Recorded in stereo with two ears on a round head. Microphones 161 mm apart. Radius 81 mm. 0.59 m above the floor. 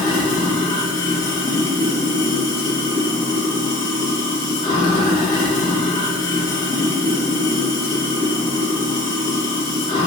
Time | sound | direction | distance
0.0 | running water | 25° left (ahead or behind) | 1.0 m